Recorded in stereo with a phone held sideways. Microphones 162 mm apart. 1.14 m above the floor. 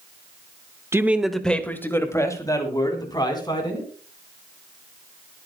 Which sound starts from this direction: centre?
A man speaking, at 0.9 s.